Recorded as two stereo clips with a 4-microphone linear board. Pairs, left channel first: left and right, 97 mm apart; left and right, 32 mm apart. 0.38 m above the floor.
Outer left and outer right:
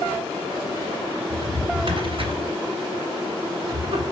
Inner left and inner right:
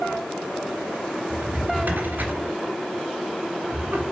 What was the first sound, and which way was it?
A drawer, 65° right (ahead or behind).